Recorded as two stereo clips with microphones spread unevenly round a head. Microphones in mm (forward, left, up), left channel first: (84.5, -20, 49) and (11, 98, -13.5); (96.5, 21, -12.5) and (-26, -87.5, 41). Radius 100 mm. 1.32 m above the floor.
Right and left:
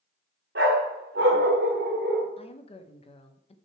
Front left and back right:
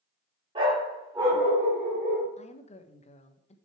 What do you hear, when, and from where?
0.6 s a dog barking: 170° left, 1.4 m; by 2.3 s 145° left, 2.5 m
2.4 s a woman speaking: 10° right, 1.2 m